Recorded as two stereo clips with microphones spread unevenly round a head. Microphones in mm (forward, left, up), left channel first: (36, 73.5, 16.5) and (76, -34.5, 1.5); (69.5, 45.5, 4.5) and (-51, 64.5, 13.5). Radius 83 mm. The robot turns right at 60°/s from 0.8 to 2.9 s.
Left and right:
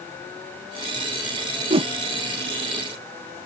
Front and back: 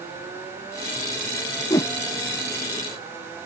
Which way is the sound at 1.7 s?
70° right.